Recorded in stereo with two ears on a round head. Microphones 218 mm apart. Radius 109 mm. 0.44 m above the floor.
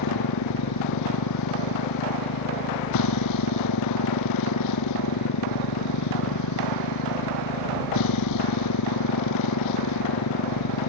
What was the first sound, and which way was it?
A motorcycle, 85° left.